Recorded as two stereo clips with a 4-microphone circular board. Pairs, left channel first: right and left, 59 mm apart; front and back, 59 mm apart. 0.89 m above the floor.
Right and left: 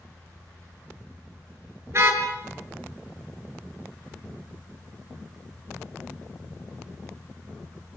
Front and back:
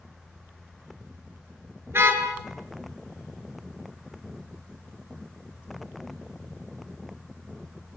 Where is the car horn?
130° left, 6 m.